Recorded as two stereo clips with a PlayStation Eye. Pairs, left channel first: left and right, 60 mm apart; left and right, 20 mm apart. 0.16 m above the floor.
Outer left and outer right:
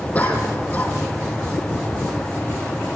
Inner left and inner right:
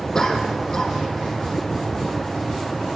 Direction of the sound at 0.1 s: 25° left (ahead or behind).